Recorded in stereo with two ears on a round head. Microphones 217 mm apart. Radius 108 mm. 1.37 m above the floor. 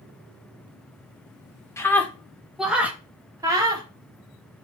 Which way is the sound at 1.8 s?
10° left (ahead or behind).